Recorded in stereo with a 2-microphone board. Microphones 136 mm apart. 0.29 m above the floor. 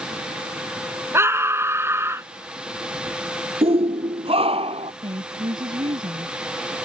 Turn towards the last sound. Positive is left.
turn(degrees=-35)  # may be behind; listen again after turning